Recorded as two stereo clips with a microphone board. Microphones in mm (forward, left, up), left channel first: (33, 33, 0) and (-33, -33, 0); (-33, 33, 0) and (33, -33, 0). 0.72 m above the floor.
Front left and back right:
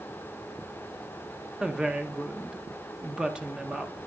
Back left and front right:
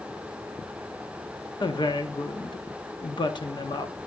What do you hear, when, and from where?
1.6 s a woman speaking: 145° left, 0.9 m